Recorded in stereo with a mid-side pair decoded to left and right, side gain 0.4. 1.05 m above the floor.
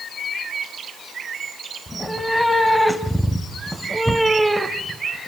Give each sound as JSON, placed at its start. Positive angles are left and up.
{"t": 1.9, "sound": "a cat meowing", "azimuth_deg": 15, "distance_m": 3.5}